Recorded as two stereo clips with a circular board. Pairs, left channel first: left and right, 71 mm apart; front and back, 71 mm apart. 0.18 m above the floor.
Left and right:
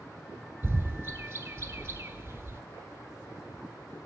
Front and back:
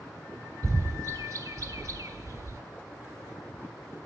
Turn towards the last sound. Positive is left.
turn(degrees=-145)